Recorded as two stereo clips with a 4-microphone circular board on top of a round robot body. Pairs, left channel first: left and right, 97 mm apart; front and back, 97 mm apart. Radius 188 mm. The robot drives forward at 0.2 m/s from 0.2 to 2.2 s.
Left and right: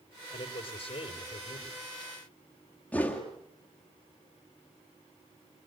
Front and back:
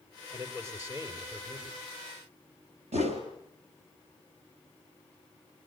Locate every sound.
0.3 s a man speaking: 115° left, 4 m
2.9 s a whoosh: 170° left, 3 m